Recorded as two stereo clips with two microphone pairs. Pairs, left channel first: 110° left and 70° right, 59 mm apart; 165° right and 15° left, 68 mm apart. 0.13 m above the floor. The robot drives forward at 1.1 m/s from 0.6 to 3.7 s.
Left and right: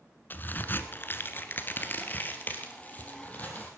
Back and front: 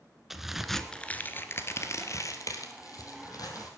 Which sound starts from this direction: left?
A crack, at 0.3 s.